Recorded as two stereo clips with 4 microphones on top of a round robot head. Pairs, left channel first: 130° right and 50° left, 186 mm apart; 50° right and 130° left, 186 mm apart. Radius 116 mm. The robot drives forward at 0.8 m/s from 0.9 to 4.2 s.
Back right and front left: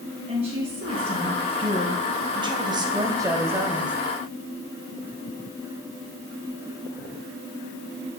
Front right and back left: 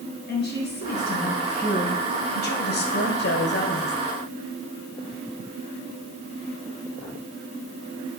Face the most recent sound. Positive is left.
turn(degrees=-45)